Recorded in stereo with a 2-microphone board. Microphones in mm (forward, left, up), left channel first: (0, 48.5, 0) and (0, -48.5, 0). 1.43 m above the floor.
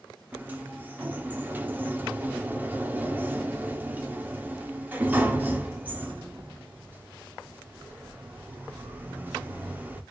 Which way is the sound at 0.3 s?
20° right (ahead or behind).